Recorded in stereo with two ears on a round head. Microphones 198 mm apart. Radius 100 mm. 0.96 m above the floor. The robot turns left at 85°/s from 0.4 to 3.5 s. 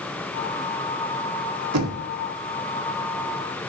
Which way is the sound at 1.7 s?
70° right (ahead or behind).